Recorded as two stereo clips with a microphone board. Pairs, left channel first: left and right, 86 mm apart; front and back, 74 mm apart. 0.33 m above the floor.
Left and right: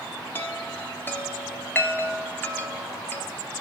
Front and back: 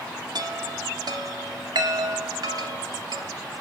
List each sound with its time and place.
0.3 s a chime: 155° left, 0.7 m